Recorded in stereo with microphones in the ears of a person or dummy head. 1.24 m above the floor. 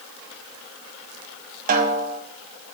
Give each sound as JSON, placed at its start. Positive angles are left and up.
{"t": 1.7, "sound": "a snare drum", "side_deg": -45, "distance_m": 0.7}